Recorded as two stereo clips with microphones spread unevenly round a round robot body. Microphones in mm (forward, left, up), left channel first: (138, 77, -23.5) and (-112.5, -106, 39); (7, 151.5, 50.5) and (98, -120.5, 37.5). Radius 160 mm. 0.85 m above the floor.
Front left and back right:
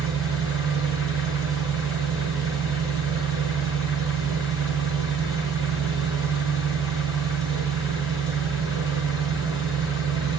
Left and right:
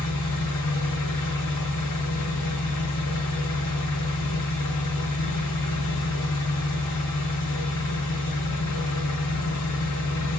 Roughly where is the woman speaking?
No woman speaking in this recording.